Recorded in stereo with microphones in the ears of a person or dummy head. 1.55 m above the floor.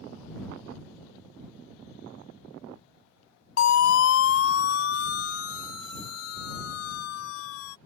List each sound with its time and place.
3.6 s a siren: 70° left (ahead or behind); by 7.8 s 80° left